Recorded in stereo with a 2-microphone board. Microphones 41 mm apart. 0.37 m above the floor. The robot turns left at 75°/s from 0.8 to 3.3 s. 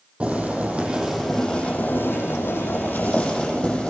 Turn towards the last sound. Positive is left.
turn(degrees=25)